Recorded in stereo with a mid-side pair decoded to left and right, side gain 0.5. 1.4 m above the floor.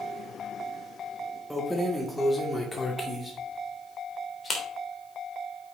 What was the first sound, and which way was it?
Keys jangling, straight ahead.